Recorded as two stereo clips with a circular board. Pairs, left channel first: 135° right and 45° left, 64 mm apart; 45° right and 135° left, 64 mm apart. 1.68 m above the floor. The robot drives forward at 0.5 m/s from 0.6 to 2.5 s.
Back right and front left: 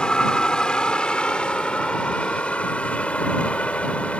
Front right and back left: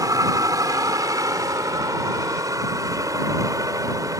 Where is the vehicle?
150° left; by 4.2 s 155° left.